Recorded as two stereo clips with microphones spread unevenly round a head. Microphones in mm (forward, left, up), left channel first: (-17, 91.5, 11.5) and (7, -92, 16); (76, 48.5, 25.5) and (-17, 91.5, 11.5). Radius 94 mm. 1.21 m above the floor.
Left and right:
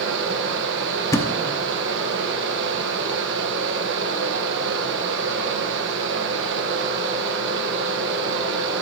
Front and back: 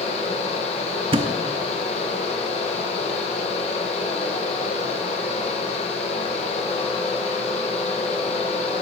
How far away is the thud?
About 0.7 m.